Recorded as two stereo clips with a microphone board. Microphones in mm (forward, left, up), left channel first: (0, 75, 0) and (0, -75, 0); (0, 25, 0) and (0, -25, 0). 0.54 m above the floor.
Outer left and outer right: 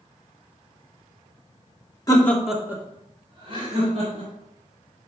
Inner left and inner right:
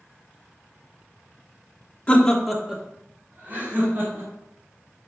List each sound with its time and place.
2.1 s laughter: 25° left (ahead or behind), 1.1 m; by 4.3 s 50° right (ahead or behind), 3 m